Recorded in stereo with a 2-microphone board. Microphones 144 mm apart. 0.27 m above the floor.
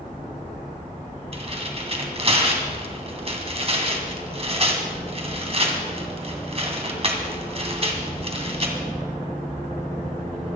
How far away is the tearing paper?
About 2.5 m.